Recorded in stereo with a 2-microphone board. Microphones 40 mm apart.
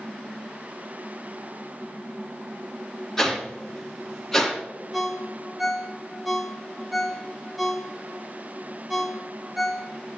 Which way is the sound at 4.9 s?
Centre (ahead or behind).